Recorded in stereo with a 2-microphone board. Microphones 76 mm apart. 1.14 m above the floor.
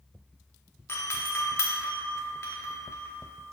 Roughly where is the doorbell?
Left.